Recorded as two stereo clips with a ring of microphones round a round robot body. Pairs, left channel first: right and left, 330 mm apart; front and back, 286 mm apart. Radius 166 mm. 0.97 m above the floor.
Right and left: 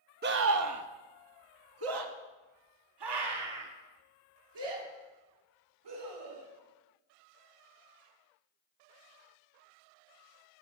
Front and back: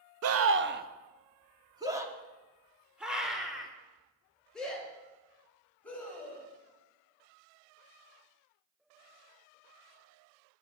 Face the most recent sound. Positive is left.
turn(degrees=85)